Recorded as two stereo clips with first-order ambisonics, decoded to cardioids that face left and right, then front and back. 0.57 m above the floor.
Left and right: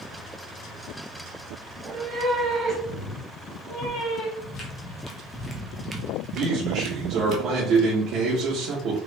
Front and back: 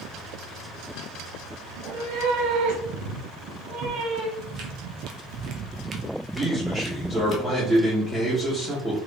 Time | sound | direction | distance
1.7 | a cat meowing | 140° right | 0.8 m
4.4 | footsteps | 150° left | 1.2 m
6.3 | a man speaking | 100° right | 1.0 m